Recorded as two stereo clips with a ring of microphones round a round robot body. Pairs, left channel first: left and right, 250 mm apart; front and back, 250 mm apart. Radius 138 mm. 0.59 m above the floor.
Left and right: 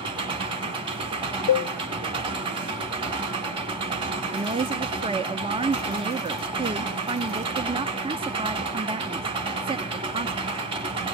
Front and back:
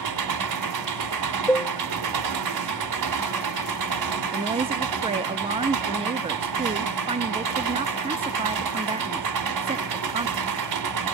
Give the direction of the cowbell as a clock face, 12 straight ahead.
9 o'clock.